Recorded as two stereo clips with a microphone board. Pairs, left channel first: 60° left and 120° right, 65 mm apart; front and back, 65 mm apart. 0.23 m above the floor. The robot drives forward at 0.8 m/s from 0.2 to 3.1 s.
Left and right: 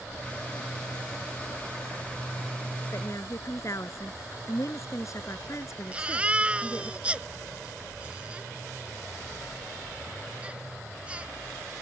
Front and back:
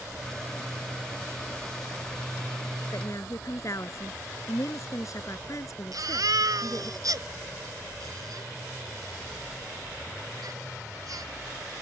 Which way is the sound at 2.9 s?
30° left.